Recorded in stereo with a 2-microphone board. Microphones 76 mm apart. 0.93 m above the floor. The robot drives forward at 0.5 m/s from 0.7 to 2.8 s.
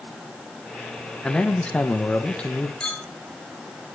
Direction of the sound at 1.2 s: 15° left (ahead or behind).